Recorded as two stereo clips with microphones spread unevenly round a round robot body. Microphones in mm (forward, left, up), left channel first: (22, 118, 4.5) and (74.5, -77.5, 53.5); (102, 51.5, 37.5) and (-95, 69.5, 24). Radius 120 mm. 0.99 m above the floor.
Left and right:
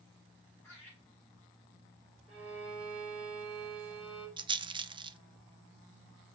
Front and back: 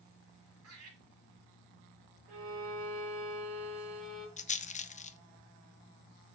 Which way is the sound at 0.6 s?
170° right.